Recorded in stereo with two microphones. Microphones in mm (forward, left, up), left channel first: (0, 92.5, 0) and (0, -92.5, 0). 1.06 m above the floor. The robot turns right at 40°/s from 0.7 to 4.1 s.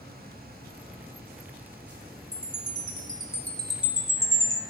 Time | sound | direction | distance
2.3 | a chime | 125° left | 1.3 m